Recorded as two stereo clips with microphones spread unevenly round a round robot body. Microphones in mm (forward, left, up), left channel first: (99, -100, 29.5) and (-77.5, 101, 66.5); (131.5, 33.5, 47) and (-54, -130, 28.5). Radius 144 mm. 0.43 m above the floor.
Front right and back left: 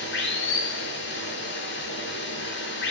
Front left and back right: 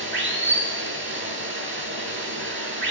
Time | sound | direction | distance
0.0 | running water | 95° right | 8.5 m